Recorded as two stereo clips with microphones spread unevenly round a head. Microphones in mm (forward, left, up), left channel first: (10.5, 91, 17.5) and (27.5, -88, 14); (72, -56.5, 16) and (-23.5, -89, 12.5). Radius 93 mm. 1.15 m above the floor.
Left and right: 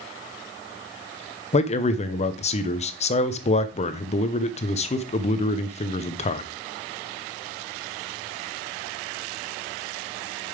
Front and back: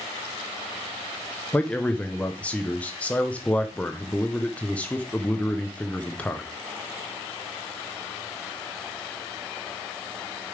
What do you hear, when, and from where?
1.5 s a man speaking: 90° left, 0.8 m